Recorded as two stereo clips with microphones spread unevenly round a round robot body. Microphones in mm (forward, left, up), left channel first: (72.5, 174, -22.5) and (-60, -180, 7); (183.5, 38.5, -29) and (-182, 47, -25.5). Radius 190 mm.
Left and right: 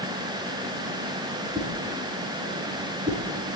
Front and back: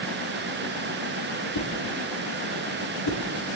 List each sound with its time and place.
1.6 s a whoosh: 40° right, 4 m